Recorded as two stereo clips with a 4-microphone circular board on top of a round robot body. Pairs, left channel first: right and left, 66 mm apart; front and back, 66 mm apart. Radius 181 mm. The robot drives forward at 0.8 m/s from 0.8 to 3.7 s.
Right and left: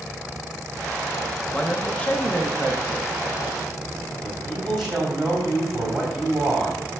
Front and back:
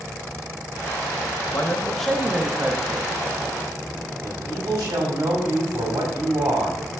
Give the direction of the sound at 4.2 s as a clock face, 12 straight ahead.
6 o'clock.